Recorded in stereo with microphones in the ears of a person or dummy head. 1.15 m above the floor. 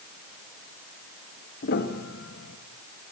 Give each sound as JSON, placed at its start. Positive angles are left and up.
{"t": 1.6, "sound": "a piano", "side_deg": 50, "distance_m": 2.5}